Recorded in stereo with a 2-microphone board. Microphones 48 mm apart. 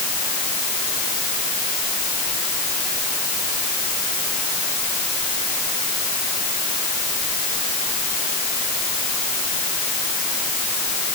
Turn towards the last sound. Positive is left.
No sound to turn to.